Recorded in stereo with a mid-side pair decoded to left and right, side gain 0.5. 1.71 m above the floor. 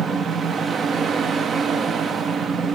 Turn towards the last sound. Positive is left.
turn(degrees=-45)